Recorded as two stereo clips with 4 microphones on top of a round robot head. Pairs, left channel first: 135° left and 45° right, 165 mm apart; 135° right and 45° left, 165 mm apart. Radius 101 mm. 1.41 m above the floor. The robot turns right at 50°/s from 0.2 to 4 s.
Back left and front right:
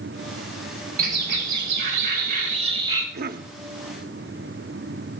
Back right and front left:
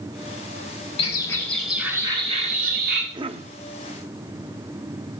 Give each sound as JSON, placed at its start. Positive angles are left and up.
{"t": 1.0, "sound": "a bird", "azimuth_deg": -75, "distance_m": 4.5}
{"t": 3.1, "sound": "a cough", "azimuth_deg": -20, "distance_m": 0.7}